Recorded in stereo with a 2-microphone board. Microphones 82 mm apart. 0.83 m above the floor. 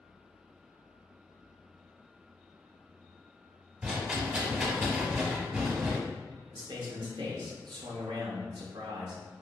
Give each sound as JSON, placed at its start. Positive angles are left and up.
{"t": 3.8, "sound": "a rattle", "side_deg": -10, "distance_m": 1.0}
{"t": 6.5, "sound": "a man speaking", "side_deg": -65, "distance_m": 0.8}